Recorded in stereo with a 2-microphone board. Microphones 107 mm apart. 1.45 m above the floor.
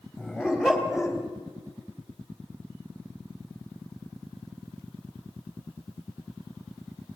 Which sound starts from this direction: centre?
A dog barking, at 0.2 s.